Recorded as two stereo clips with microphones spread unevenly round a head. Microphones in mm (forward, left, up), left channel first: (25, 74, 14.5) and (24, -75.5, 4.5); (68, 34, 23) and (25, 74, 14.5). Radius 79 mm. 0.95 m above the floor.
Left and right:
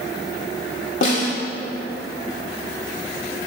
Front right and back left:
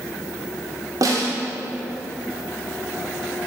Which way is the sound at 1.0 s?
135° left.